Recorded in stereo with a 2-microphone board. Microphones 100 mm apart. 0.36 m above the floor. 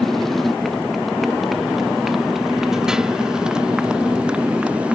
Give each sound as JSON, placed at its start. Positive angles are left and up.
{"t": 0.0, "sound": "a motorcycle", "side_deg": 5}